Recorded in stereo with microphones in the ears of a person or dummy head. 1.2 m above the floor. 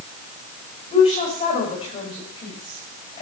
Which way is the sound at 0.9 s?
30° left (ahead or behind).